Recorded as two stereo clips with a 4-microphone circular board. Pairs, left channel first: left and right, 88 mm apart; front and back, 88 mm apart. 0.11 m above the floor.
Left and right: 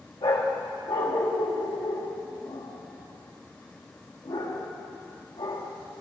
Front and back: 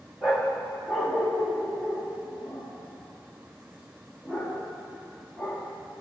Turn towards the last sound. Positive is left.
turn(degrees=95)